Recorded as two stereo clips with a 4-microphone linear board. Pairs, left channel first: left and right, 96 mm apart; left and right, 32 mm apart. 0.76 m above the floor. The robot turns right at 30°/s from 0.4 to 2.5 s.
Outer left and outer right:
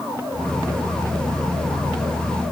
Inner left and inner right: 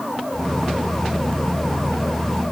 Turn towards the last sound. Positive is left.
No sound to turn to.